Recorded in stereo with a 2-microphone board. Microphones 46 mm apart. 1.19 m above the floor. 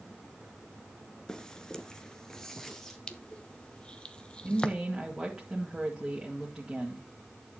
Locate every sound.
1.3 s footsteps: 15° left (ahead or behind), 1.2 m; by 3.0 s 5° left (ahead or behind), 1.9 m
3.1 s crushing: 20° left (ahead or behind), 0.8 m
4.5 s a woman speaking: 10° right (ahead or behind), 2.0 m